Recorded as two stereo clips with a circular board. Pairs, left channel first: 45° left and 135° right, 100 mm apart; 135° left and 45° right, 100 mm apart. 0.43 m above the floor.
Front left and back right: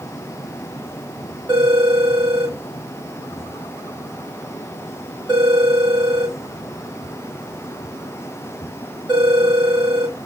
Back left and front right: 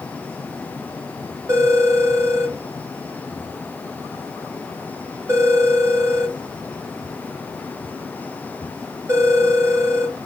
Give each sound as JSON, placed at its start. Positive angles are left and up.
{"t": 1.5, "sound": "a phone ringing", "azimuth_deg": -100, "distance_m": 1.5}